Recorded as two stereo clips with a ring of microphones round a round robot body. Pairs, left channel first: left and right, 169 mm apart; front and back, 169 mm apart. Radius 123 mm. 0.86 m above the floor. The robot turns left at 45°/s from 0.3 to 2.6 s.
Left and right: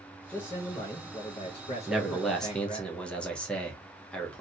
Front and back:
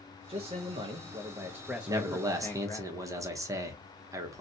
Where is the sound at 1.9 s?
165° right, 0.8 m; by 4.4 s 165° left, 0.8 m.